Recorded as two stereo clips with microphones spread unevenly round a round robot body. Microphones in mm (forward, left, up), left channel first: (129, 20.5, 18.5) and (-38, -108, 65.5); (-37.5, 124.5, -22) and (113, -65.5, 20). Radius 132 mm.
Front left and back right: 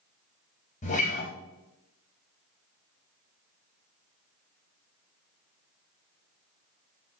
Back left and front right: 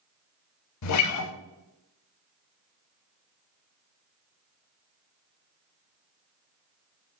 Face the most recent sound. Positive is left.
turn(degrees=105)